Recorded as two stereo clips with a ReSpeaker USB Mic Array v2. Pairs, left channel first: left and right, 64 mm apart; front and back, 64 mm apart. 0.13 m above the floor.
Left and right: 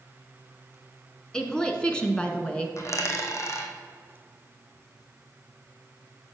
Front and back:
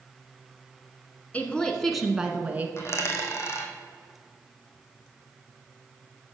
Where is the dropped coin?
45° left, 1.6 m.